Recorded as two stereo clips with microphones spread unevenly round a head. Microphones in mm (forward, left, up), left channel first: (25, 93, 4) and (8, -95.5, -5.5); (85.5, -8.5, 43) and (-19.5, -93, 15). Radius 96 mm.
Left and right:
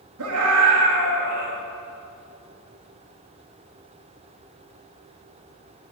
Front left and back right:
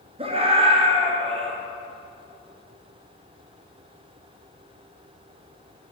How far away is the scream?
About 4 m.